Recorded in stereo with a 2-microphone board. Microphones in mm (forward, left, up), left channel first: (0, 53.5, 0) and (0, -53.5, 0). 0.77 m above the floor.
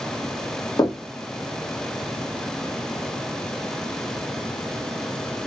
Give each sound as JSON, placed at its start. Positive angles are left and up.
{"t": 0.8, "sound": "knocking", "side_deg": 35, "distance_m": 1.1}